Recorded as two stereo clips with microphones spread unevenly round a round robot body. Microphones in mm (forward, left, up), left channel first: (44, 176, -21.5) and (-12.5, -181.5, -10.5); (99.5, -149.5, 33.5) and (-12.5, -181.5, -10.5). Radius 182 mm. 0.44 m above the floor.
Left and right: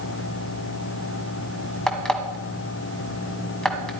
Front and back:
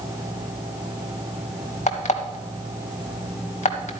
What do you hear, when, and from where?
1.9 s an alarm clock: 5° right, 1.9 m